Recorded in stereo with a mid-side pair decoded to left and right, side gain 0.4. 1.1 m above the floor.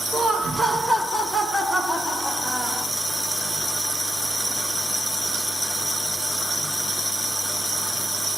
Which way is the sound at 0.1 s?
35° right.